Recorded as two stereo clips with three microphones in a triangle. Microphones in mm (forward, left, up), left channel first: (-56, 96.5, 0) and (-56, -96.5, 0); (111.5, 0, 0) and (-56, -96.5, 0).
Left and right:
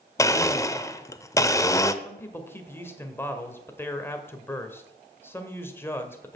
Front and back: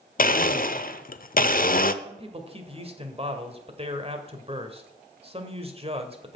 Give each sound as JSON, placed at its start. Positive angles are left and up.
{"t": 0.2, "sound": "a blender", "azimuth_deg": 25, "distance_m": 0.6}
{"t": 2.0, "sound": "a man speaking", "azimuth_deg": 165, "distance_m": 1.6}